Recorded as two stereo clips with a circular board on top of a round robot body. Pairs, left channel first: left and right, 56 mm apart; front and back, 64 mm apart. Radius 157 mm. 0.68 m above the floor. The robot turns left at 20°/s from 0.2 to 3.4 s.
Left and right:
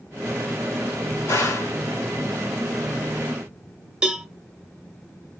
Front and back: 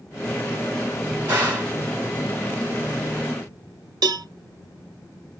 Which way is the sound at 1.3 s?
120° left.